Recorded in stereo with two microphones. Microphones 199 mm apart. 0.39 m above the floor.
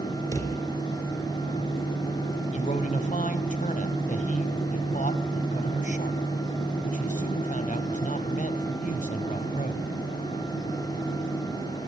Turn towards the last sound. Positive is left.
turn(degrees=40)  # may be behind; listen again after turning